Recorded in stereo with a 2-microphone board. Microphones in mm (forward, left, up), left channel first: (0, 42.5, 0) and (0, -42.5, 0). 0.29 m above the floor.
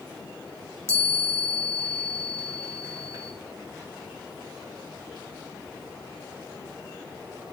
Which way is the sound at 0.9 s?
35° right (ahead or behind).